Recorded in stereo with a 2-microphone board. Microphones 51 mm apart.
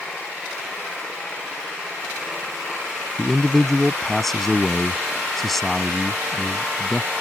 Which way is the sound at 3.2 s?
5° left (ahead or behind).